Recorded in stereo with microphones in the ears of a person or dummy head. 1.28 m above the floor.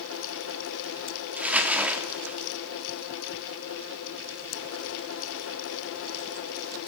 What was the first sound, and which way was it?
Crumpling, 5° right (ahead or behind).